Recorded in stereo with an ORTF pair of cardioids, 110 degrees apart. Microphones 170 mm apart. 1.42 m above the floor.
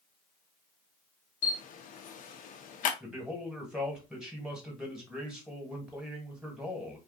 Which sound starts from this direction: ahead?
A man speaking, at 3.0 s.